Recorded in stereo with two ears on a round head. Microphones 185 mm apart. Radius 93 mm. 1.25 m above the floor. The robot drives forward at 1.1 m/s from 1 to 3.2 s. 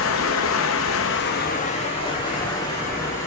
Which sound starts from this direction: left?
Running water, at 0.0 s.